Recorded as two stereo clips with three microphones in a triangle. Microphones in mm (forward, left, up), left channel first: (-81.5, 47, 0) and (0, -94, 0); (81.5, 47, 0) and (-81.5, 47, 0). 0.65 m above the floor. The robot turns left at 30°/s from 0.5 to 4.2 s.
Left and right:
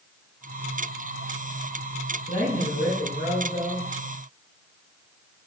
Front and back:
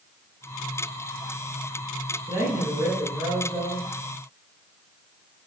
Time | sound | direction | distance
2.3 | a man speaking | 130° left | 3 m